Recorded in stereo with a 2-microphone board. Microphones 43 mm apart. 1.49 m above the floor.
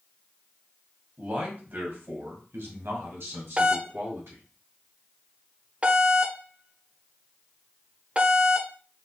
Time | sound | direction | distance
1.2 | a man speaking | 35° right (ahead or behind) | 1.8 m
3.6 | a doorbell | 30° right (ahead or behind) | 0.5 m